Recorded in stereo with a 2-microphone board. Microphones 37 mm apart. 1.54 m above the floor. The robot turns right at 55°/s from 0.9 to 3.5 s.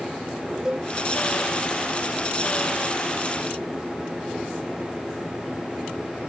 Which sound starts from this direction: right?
A cowbell, at 0.7 s.